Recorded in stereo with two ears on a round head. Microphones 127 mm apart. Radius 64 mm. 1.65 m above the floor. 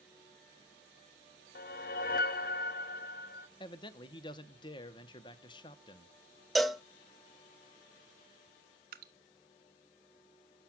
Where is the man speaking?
35° left (ahead or behind), 0.8 m.